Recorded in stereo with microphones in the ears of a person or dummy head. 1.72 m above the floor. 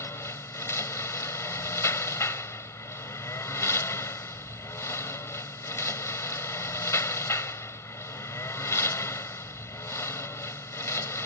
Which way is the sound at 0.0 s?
15° left (ahead or behind).